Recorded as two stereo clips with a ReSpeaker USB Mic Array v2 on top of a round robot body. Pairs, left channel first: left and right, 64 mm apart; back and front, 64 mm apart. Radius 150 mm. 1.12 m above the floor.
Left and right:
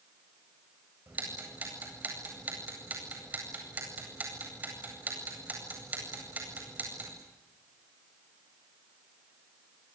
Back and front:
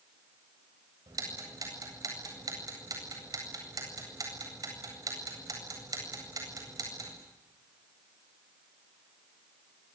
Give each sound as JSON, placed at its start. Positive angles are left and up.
{"t": 1.1, "sound": "ticking", "azimuth_deg": -25, "distance_m": 8.5}